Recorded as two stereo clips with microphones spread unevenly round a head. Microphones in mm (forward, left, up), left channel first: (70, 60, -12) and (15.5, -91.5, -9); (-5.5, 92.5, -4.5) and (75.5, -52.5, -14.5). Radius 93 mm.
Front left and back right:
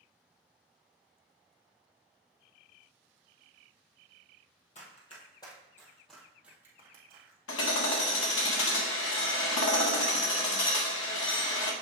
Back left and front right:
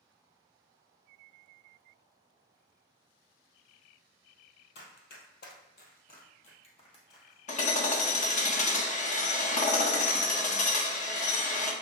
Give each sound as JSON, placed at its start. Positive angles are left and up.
{"t": 4.8, "sound": "running footsteps", "azimuth_deg": 120, "distance_m": 1.9}
{"t": 7.5, "sound": "hammering", "azimuth_deg": 70, "distance_m": 1.3}